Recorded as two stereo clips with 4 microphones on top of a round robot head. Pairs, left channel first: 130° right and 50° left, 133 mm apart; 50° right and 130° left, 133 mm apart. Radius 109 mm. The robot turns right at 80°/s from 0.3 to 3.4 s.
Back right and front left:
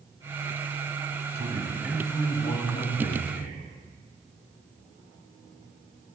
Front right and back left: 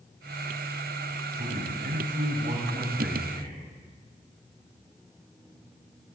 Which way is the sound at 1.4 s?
85° left.